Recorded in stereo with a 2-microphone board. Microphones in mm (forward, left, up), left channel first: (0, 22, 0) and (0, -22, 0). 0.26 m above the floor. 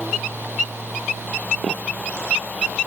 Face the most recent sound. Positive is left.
No sound to turn to.